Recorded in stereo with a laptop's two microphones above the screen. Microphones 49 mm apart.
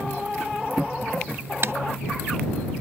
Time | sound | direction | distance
1.6 | typing on a keyboard | 55° right (ahead or behind) | ?